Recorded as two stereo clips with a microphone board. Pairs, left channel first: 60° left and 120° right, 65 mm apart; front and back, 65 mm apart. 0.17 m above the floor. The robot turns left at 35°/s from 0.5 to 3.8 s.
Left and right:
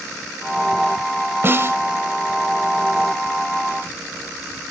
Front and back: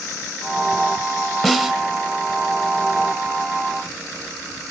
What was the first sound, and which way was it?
A snare drum, 95° right.